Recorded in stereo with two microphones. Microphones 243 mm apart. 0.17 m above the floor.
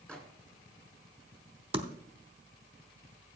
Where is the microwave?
5° left (ahead or behind), 1.7 m.